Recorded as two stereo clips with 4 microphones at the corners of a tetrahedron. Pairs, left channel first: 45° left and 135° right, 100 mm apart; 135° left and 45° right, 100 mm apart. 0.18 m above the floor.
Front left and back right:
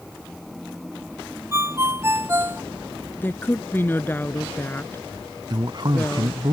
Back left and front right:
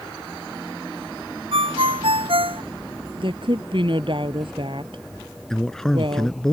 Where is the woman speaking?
25° right.